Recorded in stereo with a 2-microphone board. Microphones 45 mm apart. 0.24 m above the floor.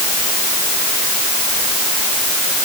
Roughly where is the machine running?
No machine running in this recording.